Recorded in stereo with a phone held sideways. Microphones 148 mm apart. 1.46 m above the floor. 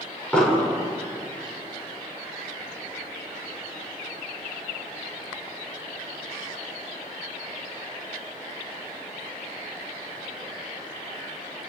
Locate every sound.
0.3 s an explosion: 5° left (ahead or behind), 6 m